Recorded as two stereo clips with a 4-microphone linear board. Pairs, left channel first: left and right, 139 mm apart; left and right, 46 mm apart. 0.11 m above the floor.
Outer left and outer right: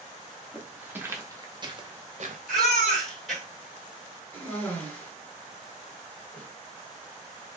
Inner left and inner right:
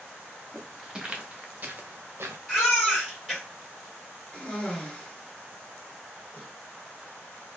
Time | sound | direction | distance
0.5 | footsteps | 5° right (ahead or behind) | 1.3 m
2.5 | a baby crying | 5° left (ahead or behind) | 2.5 m
4.3 | a cough | 15° left (ahead or behind) | 2 m